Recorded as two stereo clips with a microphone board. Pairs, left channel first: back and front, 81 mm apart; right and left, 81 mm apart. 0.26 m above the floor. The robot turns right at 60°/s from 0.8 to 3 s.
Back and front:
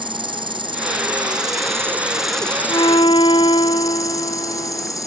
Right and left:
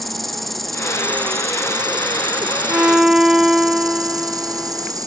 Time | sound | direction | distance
0.0 | an insect | straight ahead | ?
2.7 | a violin | 155° left | ?